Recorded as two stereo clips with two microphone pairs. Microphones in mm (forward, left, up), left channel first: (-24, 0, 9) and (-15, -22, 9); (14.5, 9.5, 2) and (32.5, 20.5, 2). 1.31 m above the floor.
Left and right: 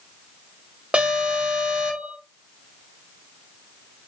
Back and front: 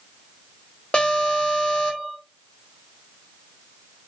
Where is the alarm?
110° right, 1.1 m.